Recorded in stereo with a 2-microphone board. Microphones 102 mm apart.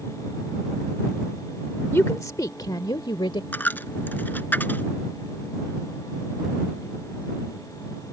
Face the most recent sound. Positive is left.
turn(degrees=20)  # may be behind; listen again after turning